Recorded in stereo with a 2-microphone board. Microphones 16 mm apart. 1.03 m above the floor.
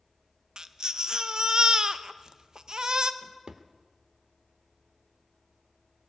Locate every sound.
0.6 s a baby crying: 45° right (ahead or behind), 0.5 m
3.2 s a drawer: 50° right (ahead or behind), 0.9 m